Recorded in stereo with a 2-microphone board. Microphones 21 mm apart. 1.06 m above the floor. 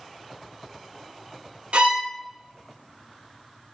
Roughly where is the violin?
Right.